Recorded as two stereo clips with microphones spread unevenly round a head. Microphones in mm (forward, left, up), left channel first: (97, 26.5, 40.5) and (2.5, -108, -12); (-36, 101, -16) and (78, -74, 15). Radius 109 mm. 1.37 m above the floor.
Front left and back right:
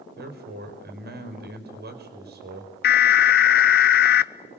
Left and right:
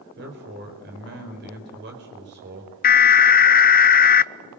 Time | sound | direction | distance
0.2 | a man speaking | 105° right | 5 m
2.8 | an alarm | 100° left | 0.7 m